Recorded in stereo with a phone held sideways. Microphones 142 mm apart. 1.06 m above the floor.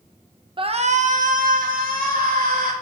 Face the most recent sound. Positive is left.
turn(degrees=-80)